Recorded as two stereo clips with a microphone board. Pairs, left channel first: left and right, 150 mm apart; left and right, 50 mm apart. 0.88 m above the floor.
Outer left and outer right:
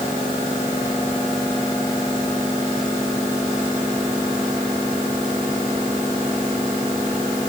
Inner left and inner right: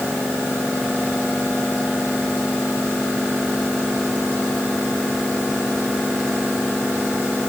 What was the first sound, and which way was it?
Only background noise.